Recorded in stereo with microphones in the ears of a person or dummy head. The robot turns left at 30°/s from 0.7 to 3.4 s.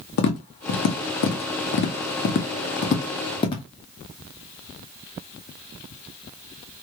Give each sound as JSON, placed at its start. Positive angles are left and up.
{"t": 0.2, "sound": "tapping", "side_deg": 50, "distance_m": 0.8}